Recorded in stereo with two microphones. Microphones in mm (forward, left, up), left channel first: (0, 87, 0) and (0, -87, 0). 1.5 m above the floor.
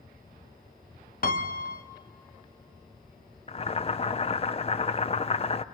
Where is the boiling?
35° left (ahead or behind), 0.5 m.